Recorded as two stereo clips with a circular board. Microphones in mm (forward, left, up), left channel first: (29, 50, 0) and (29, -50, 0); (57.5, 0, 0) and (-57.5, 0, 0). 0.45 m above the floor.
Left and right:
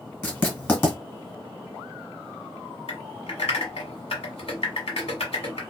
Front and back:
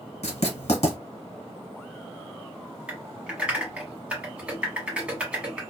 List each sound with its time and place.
0.2 s writing: 15° left, 1.4 m
2.9 s typing on a keyboard: 100° left, 1.2 m